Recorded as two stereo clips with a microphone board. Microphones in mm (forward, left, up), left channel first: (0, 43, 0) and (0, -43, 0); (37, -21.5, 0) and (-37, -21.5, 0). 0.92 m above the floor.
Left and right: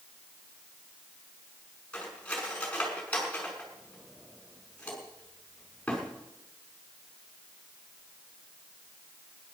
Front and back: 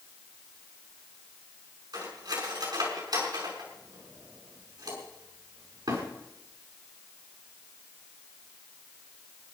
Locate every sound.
1.9 s cutlery clinking: 165° left, 6 m